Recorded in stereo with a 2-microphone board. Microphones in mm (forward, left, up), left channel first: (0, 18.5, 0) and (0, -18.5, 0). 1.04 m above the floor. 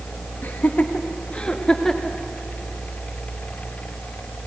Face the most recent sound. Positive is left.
turn(degrees=10)  # may be behind; listen again after turning